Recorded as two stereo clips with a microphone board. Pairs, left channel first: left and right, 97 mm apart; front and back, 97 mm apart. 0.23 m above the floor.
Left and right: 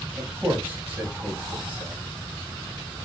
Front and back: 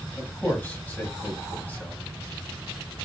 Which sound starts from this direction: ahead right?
A man speaking, at 0.2 s.